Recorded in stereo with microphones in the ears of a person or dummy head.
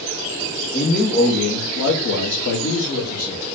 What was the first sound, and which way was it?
A man speaking, 25° left (ahead or behind).